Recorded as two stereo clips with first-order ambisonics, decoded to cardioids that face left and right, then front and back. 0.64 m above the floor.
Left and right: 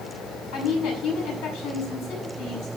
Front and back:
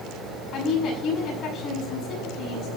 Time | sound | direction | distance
0.5 | a woman speaking | 60° left | 7 m